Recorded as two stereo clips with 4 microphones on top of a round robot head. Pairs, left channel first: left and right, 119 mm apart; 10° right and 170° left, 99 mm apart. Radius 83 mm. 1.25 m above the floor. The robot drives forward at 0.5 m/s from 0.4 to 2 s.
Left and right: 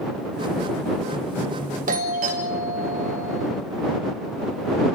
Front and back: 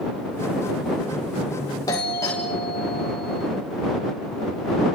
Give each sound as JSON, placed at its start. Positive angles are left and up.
{"t": 1.9, "sound": "a doorbell", "azimuth_deg": -75, "distance_m": 3.5}